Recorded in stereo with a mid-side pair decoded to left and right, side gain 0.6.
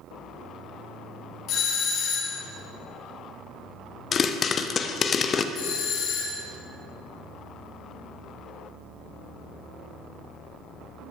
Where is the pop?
40° left, 0.7 m.